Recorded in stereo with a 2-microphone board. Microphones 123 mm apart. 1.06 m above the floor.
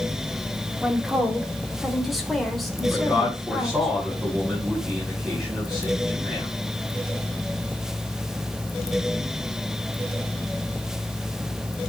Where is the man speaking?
5° right (ahead or behind), 6.5 m.